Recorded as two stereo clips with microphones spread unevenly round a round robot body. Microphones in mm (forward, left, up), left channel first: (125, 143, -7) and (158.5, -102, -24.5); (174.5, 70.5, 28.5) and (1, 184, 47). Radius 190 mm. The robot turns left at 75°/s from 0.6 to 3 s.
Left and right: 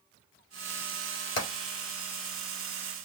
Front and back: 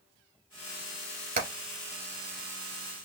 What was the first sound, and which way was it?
Hammering, 105° left.